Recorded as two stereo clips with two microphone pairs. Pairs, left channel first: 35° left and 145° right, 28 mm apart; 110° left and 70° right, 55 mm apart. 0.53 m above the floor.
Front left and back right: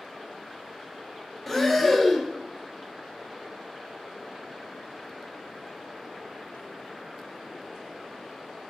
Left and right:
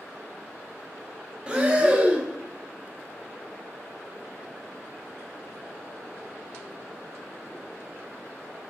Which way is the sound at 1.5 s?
40° right.